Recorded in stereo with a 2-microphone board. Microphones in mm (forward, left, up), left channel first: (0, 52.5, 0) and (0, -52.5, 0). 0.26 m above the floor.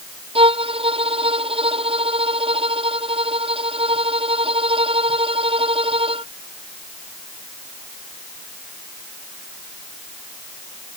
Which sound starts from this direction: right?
A violin, at 0.3 s.